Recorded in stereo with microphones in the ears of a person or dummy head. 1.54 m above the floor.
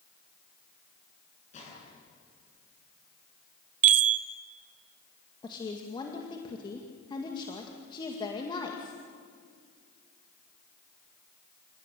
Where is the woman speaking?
25° left (ahead or behind), 2 m.